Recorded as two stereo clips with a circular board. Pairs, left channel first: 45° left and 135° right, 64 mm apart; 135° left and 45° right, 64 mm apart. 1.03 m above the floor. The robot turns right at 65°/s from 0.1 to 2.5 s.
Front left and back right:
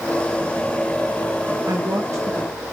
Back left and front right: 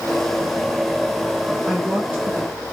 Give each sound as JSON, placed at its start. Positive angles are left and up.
{"t": 1.6, "sound": "a woman speaking", "azimuth_deg": -135, "distance_m": 0.9}